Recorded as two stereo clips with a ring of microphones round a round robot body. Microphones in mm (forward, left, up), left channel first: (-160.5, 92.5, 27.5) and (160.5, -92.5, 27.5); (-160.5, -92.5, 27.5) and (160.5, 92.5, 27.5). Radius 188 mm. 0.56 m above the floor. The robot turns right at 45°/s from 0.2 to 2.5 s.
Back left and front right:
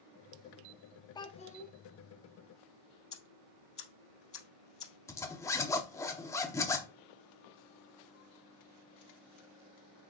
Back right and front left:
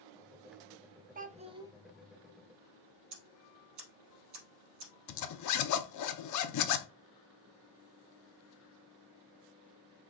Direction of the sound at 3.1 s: 75° left.